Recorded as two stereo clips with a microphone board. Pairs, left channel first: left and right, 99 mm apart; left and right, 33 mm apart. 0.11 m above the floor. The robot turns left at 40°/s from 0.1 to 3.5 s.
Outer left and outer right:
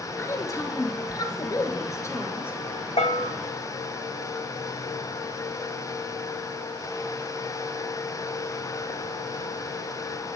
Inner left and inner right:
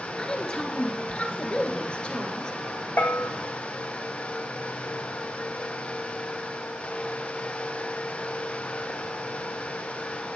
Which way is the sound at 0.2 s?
130° left.